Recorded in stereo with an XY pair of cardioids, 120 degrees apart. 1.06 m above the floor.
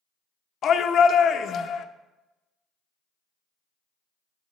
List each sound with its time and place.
0.6 s a shout: 50° left, 0.7 m